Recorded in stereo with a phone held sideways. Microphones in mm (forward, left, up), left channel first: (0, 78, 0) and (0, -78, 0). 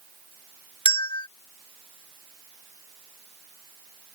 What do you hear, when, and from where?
0.8 s a bell: 30° left (ahead or behind)